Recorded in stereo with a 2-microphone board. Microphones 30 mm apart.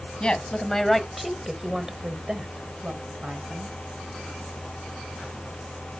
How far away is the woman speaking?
About 1.8 m.